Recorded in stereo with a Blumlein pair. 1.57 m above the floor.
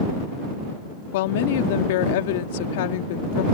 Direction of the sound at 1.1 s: 50° left.